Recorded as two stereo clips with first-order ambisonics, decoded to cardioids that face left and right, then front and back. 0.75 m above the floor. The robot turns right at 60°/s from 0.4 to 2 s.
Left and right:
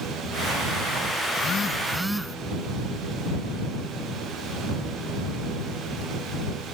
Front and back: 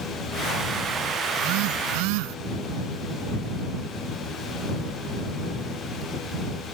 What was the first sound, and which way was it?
A phone buzzing, 140° left.